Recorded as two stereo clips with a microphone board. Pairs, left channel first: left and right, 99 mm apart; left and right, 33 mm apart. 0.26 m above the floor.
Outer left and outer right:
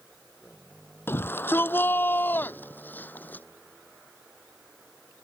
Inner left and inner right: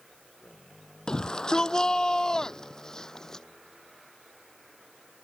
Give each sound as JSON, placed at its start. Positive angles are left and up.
{"t": 1.1, "sound": "a shout", "side_deg": 20}